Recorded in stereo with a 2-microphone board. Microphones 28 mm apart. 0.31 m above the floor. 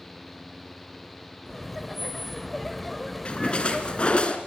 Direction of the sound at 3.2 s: 40° left (ahead or behind).